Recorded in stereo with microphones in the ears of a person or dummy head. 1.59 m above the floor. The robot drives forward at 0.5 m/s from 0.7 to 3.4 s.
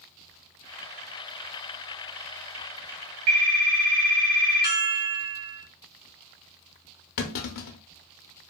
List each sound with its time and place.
3.3 s a phone ringing: 30° right (ahead or behind), 0.7 m
4.6 s a chime: 10° right (ahead or behind), 1.2 m
7.2 s a clunk: 55° left (ahead or behind), 0.5 m